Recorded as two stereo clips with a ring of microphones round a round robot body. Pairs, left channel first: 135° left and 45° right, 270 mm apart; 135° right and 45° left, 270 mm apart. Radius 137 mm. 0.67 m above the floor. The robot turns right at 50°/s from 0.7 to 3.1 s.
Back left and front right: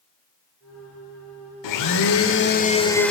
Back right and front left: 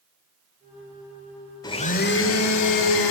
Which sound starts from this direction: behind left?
A blender, at 1.6 s.